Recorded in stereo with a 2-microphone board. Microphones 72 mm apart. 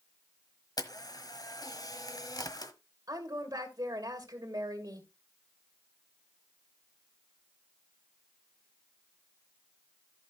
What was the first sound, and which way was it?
A camera shutter, 60° left (ahead or behind).